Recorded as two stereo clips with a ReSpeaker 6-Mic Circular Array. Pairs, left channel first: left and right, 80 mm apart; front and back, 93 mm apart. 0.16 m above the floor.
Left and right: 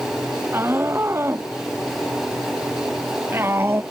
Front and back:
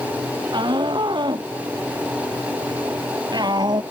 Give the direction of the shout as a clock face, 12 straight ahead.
5 o'clock.